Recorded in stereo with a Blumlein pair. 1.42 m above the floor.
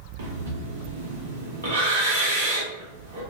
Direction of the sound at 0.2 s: 65° right.